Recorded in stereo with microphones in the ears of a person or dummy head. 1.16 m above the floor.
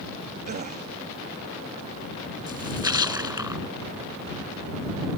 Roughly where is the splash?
Centre.